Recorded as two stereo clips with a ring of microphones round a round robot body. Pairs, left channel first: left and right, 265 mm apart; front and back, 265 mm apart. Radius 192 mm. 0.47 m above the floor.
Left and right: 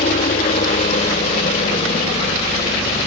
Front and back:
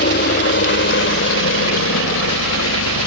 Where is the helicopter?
30° left; by 3.1 s 20° left.